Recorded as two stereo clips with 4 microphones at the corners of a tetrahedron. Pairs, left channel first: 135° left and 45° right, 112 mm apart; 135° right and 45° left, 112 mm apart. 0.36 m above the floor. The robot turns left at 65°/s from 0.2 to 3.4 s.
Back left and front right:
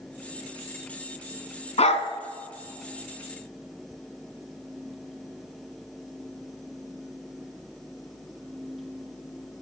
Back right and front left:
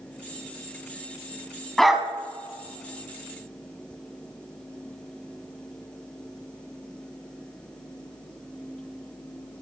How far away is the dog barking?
About 1.2 m.